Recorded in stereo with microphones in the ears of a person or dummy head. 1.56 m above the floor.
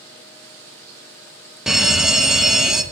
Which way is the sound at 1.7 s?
Centre (ahead or behind).